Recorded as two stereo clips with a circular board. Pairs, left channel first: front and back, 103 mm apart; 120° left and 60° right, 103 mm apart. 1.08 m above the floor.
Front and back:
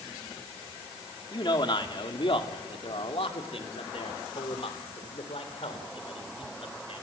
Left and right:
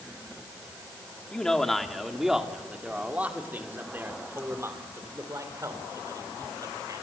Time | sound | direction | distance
1.3 | a man speaking | 40° left | 2 m